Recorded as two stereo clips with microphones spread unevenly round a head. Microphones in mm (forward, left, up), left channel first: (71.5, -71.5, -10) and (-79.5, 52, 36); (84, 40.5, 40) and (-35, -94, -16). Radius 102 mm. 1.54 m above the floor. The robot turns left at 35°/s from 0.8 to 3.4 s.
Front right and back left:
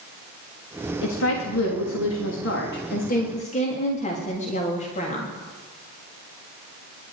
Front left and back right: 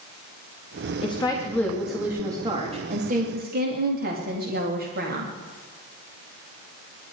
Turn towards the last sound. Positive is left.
turn(degrees=-95)